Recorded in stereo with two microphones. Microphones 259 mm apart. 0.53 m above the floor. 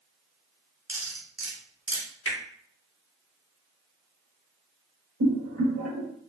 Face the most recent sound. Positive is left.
turn(degrees=-70)  # may be behind; listen again after turning